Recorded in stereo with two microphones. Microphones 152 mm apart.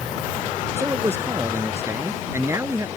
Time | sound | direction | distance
0.8 | a man speaking | 20° right (ahead or behind) | ?